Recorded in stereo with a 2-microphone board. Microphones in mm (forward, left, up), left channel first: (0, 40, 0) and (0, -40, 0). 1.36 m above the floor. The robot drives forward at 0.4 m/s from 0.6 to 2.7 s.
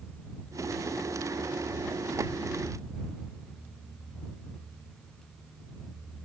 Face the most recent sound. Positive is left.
No sound to turn to.